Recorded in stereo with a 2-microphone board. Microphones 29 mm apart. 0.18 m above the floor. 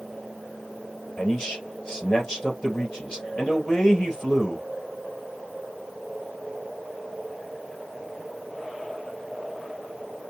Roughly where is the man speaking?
Left.